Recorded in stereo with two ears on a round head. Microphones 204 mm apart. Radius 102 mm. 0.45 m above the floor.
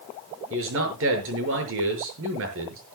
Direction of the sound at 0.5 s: 60° right (ahead or behind).